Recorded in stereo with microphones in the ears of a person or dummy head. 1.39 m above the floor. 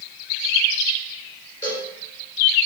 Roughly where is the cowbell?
Left.